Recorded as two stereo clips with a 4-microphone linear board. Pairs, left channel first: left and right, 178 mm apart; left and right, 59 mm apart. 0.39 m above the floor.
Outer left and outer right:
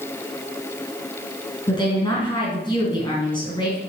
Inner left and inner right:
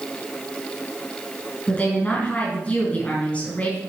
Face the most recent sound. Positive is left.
turn(degrees=25)  # may be behind; listen again after turning